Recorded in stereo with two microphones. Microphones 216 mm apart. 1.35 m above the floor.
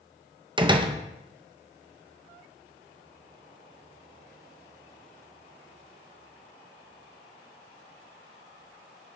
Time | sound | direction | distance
0.6 | a door slam | 20° right (ahead or behind) | 0.6 m